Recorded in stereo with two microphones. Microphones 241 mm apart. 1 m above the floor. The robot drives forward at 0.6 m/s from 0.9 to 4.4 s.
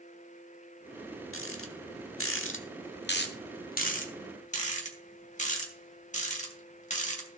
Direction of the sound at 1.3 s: 60° left (ahead or behind).